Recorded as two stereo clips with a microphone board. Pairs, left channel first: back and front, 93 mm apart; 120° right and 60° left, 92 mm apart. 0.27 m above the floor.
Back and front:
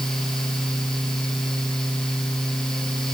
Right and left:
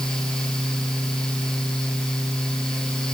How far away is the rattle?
I don't hear a rattle.